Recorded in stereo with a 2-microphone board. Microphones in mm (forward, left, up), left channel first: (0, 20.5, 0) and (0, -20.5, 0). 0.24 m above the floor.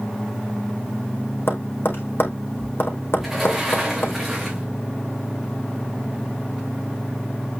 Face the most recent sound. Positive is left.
turn(degrees=-5)  # may be behind; listen again after turning